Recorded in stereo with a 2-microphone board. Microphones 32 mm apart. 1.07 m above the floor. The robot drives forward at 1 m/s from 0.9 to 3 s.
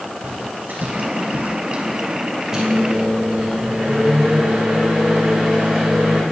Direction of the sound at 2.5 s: 15° right (ahead or behind).